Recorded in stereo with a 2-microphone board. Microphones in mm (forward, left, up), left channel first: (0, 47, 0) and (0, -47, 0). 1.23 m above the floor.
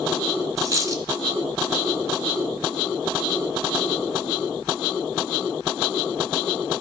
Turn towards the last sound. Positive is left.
turn(degrees=-40)  # may be behind; listen again after turning